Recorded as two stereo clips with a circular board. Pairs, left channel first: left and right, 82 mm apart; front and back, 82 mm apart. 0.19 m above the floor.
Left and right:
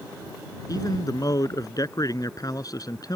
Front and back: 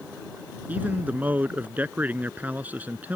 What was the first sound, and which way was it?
A man speaking, 115° left.